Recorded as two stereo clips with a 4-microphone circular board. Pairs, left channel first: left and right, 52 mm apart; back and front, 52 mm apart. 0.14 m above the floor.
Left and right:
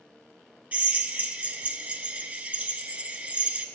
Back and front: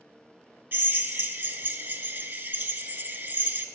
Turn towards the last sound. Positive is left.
turn(degrees=-35)